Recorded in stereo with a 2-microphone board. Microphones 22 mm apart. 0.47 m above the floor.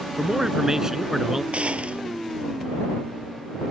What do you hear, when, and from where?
0.2 s a man speaking: 30° right (ahead or behind); by 1.4 s 20° right (ahead or behind)
1.5 s a gunshot: 80° right